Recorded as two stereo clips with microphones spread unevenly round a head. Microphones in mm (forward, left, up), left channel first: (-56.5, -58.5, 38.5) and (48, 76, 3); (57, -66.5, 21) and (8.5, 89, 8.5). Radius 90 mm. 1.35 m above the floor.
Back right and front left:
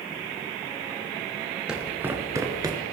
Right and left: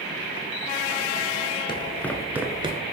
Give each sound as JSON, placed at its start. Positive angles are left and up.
{"t": 1.7, "sound": "footsteps", "azimuth_deg": -45, "distance_m": 1.5}